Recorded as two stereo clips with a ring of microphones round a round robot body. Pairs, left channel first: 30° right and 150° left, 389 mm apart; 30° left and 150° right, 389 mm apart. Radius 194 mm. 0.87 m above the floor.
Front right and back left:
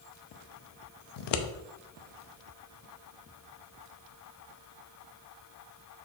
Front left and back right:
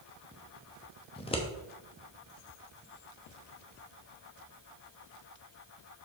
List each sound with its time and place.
1.2 s scissors: 45° right, 0.8 m